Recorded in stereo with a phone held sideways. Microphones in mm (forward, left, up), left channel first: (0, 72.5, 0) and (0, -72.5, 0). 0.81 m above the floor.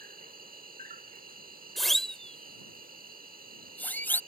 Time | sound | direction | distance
0.0 | an insect | 75° right (ahead or behind) | ?
1.8 | a siren | centre (ahead or behind) | ?